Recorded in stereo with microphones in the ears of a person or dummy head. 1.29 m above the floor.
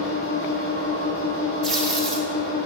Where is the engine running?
70° left (ahead or behind), 1.4 m.